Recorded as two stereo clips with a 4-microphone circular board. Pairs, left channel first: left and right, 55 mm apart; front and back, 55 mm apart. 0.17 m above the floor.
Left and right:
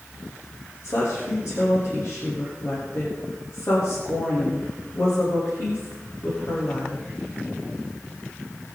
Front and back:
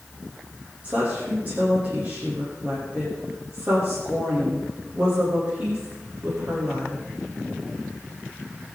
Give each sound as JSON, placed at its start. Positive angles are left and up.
{"t": 0.8, "sound": "a woman speaking", "azimuth_deg": 115, "distance_m": 8.5}